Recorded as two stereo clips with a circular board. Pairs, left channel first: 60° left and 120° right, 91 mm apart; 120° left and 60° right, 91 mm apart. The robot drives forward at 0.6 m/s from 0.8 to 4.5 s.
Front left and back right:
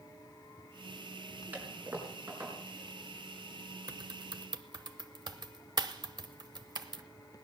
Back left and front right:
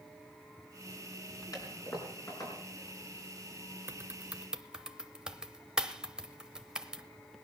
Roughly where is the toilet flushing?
Behind.